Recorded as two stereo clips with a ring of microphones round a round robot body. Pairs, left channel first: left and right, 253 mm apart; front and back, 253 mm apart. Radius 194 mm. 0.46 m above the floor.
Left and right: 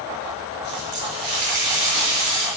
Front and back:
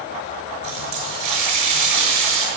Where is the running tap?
170° right, 6.5 m.